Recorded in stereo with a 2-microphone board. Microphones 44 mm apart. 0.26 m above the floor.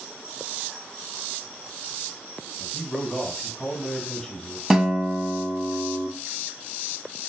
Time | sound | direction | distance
2.6 | a man speaking | 5° left (ahead or behind) | 1.6 m
4.7 | a guitar | 10° right (ahead or behind) | 0.7 m